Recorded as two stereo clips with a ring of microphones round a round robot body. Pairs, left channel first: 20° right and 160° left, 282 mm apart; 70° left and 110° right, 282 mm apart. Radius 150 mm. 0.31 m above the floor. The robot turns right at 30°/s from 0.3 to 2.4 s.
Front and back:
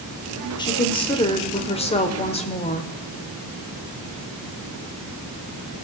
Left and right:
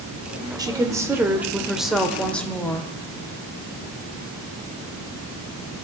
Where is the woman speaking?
65° right, 1.0 m; by 2.9 s 10° right, 1.0 m.